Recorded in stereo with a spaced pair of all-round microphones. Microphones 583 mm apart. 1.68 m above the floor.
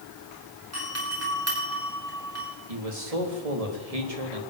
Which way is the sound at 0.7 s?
25° right (ahead or behind).